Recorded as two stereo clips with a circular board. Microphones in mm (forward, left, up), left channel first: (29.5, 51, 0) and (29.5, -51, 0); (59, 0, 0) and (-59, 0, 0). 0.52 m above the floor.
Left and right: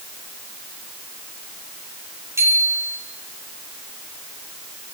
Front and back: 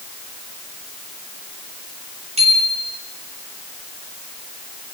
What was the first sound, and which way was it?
A bicycle bell, 150° right.